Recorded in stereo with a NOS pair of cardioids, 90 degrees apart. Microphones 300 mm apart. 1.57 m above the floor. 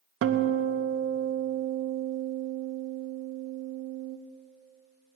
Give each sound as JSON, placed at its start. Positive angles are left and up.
{"t": 0.2, "sound": "a guitar", "azimuth_deg": -45, "distance_m": 1.0}